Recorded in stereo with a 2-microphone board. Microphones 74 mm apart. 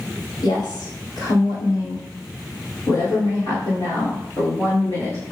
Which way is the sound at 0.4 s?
75° left (ahead or behind).